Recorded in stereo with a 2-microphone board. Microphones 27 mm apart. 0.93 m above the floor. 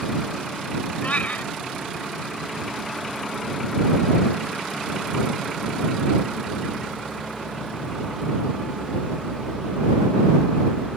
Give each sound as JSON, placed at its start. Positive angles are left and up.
{"t": 1.0, "sound": "a cat meowing", "side_deg": 65}